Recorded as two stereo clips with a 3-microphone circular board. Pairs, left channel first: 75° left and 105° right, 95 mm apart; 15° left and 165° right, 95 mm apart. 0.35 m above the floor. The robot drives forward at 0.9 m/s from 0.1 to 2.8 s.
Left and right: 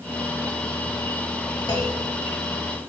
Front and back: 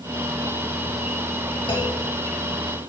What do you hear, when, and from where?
1.7 s a clunk: 35° left, 5 m; by 2.0 s 40° left, 5 m